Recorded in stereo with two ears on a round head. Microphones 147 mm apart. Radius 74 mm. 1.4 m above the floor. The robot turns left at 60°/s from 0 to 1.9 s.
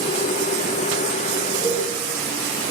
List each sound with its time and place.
1.6 s a cowbell: 60° left (ahead or behind), 2 m; by 1.8 s 75° left (ahead or behind), 2 m